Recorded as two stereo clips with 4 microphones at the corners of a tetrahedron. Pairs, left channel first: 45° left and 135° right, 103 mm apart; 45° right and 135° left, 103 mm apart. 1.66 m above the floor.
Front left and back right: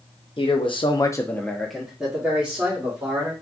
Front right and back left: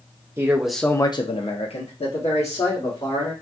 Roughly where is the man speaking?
Left.